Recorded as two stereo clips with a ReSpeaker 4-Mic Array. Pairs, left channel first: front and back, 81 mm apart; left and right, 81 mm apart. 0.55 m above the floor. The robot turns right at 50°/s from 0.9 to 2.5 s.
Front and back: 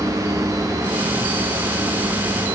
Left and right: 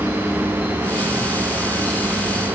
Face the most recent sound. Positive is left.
No sound to turn to.